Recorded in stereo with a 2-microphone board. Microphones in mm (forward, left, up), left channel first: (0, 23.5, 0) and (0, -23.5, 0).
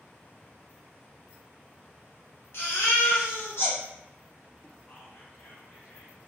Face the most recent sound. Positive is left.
turn(degrees=50)  # may be behind; listen again after turning